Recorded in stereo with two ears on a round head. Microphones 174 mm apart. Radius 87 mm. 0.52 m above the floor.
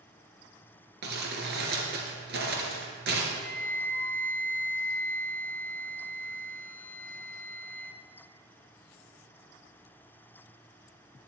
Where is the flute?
10° left (ahead or behind), 0.7 m.